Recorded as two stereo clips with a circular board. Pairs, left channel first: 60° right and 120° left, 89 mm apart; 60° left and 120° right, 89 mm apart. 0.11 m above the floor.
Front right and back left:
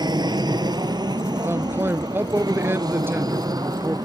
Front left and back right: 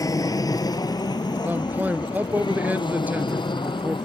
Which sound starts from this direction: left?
An aircraft, at 0.0 s.